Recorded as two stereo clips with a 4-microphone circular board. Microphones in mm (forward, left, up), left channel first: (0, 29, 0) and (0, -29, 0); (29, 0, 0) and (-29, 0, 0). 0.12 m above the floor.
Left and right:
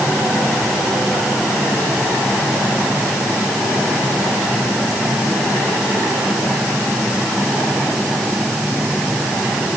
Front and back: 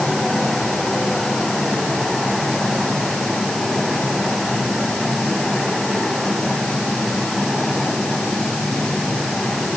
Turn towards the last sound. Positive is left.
No sound to turn to.